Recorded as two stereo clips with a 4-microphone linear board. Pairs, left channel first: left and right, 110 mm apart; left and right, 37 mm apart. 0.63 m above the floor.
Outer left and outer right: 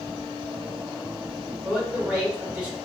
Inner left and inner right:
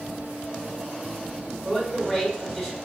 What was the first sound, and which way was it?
A man speaking, 10° right (ahead or behind).